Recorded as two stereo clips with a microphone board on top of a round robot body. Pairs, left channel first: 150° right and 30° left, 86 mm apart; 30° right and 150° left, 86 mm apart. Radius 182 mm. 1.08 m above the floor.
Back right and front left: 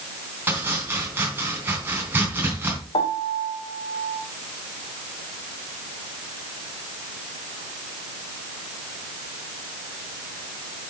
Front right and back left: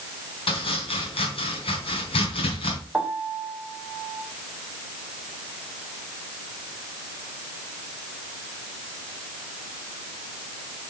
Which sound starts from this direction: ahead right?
Chopping, at 0.5 s.